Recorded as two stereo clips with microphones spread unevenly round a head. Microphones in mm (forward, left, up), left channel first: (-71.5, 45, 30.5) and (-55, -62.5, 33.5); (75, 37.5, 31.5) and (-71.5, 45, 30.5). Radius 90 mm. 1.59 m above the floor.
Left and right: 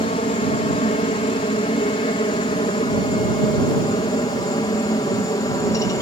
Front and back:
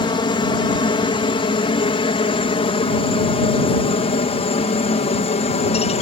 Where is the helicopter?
55° left; by 6.0 s 35° left.